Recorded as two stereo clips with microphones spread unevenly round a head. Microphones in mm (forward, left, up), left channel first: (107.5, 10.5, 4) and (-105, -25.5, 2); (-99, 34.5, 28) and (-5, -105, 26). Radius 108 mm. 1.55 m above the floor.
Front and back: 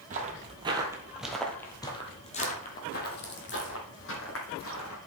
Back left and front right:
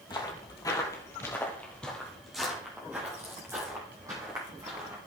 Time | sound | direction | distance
0.1 | footsteps | 170° left | 1.8 m